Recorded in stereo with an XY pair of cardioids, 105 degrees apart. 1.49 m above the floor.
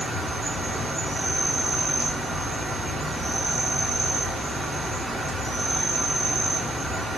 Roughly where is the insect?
Ahead.